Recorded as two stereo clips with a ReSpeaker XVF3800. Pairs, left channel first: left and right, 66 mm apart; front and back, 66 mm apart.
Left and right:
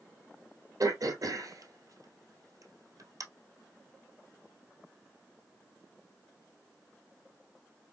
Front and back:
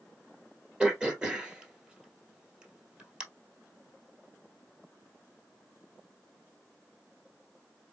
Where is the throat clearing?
105° right, 1.6 m.